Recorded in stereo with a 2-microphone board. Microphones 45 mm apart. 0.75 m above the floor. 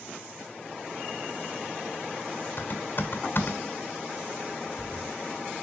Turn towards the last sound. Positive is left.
turn(degrees=50)  # may be behind; listen again after turning